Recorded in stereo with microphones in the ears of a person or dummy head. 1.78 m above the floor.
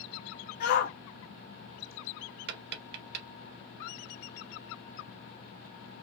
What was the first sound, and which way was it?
A shout, 45° left (ahead or behind).